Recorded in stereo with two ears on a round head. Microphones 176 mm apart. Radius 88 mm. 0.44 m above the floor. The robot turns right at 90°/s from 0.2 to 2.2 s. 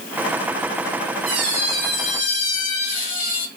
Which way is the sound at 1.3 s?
45° right.